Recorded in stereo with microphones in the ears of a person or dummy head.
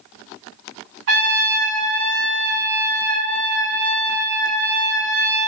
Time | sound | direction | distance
1.1 | a trumpet | 65° right (ahead or behind) | 3.5 m